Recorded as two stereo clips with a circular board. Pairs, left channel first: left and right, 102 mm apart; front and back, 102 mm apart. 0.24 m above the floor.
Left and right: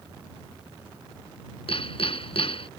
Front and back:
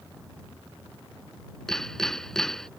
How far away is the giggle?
No giggle in this recording.